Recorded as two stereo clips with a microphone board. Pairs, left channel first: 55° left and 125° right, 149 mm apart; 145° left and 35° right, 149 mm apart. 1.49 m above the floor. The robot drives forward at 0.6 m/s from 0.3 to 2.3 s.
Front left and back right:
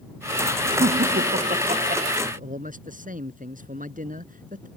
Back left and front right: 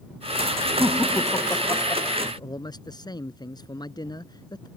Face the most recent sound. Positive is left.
turn(degrees=-150)